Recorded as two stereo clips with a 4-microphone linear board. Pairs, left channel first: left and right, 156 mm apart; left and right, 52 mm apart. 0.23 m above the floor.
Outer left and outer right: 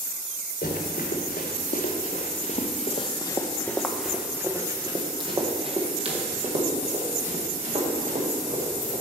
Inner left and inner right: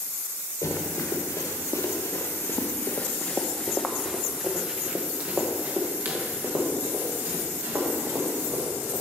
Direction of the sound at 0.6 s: 80° left.